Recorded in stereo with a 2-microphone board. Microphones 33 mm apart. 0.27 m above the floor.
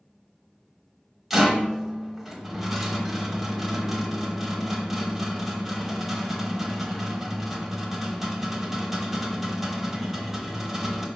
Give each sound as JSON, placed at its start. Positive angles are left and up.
{"t": 1.3, "sound": "a rattle", "side_deg": -5, "distance_m": 0.9}